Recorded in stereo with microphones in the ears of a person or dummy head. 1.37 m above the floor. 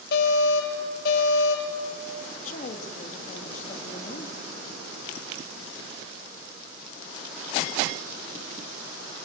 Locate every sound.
0.1 s an alarm: 55° left (ahead or behind), 6 m
2.2 s a woman speaking: 45° left (ahead or behind), 2.5 m